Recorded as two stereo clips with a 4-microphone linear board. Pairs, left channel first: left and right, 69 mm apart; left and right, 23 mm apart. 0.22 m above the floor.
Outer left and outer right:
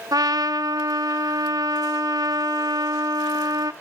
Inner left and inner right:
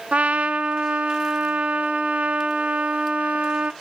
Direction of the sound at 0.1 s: 65° right (ahead or behind).